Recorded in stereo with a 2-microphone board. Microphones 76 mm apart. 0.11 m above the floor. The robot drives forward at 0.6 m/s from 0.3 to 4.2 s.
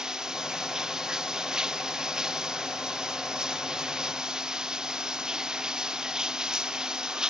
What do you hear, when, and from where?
0.0 s running water: 10° right (ahead or behind)